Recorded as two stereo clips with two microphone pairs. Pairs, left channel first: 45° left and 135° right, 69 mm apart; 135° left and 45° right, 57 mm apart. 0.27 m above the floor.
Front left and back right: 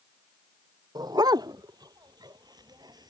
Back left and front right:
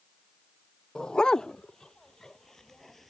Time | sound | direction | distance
0.9 | a dog barking | 150° right | ?